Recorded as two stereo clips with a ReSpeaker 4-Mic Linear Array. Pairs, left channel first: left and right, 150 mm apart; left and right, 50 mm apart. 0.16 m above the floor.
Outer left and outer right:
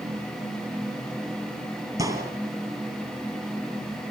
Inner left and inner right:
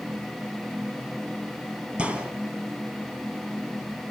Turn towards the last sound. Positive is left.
turn(degrees=-25)  # may be behind; listen again after turning